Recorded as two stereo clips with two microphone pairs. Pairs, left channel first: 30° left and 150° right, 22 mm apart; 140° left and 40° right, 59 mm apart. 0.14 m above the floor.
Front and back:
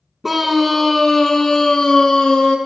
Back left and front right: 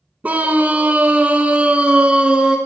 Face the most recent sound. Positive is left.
turn(degrees=30)